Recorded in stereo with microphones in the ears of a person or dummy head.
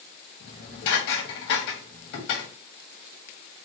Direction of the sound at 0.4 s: 65° left (ahead or behind).